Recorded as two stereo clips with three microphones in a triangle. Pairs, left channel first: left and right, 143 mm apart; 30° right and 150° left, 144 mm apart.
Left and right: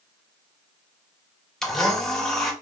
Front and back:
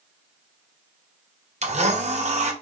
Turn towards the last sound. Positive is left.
turn(degrees=175)